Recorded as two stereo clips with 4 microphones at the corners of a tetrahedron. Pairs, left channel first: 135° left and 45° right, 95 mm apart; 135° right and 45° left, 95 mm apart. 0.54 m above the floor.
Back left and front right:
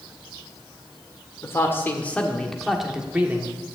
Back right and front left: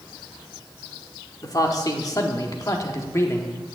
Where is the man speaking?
170° right, 1.7 m; by 3.5 s 90° right, 1.3 m.